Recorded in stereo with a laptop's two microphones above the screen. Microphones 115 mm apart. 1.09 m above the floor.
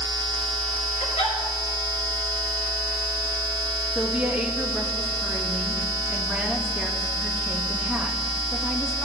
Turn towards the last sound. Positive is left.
turn(degrees=-10)  # may be behind; listen again after turning